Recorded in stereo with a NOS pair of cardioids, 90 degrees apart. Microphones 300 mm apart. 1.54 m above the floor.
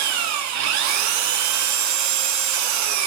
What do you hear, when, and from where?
0.0 s an engine running: 70° right, 0.8 m